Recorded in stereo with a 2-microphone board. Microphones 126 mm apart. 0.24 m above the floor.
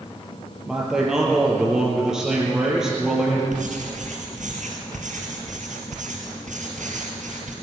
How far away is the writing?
About 3.5 m.